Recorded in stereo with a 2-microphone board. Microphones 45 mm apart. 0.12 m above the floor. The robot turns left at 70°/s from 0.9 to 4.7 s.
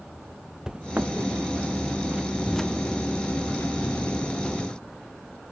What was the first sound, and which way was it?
Footsteps, 15° right (ahead or behind).